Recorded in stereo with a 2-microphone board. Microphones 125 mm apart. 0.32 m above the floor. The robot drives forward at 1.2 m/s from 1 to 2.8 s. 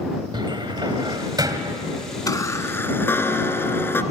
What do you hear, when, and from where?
0.3 s a cupboard door: 40° right (ahead or behind), 1.7 m; by 1.8 s 30° right (ahead or behind), 2 m
2.3 s a chime: 30° left (ahead or behind), 0.9 m; by 4.0 s 20° left (ahead or behind), 1.5 m